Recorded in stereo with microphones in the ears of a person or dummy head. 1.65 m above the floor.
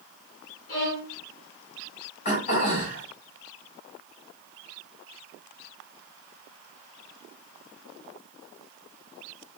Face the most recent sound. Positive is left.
turn(degrees=35)  # may be behind; listen again after turning